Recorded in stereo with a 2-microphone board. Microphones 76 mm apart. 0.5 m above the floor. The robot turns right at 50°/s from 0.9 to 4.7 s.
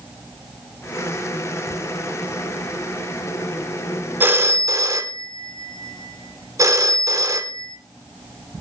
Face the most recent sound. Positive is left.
turn(degrees=-45)  # may be behind; listen again after turning